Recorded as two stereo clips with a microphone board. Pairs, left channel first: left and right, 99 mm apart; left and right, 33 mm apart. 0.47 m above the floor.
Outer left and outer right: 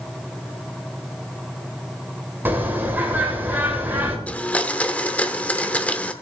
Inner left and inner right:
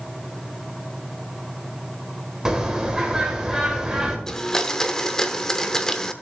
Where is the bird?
20° right (ahead or behind), 1.9 m.